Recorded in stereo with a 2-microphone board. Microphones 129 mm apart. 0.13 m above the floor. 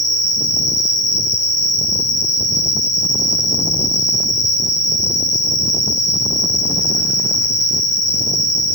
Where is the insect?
30° right (ahead or behind), 0.9 m.